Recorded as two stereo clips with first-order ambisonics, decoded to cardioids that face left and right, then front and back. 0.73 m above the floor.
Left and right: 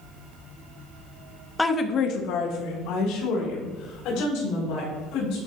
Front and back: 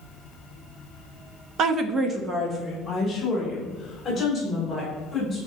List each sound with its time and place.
1.6 s a woman speaking: 170° left, 0.7 m; by 5.4 s 85° left, 4.5 m